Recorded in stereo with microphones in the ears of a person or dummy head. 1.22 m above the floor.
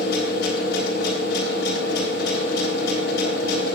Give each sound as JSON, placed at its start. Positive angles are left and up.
{"t": 0.0, "sound": "a machine running", "side_deg": 75, "distance_m": 3.5}